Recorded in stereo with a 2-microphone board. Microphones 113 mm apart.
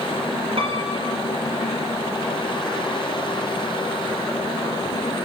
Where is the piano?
55° right (ahead or behind), 4 m.